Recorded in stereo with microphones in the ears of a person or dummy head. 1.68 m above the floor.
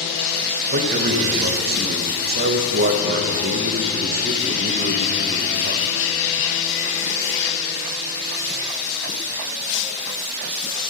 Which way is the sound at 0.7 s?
45° right (ahead or behind).